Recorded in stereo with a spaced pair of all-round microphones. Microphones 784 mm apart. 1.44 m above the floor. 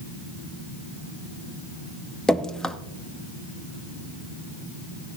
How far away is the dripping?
About 0.5 m.